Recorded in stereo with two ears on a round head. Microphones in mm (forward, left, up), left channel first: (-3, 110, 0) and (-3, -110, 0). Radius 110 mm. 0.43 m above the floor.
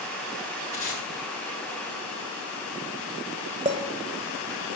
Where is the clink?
25° right (ahead or behind), 1.2 m.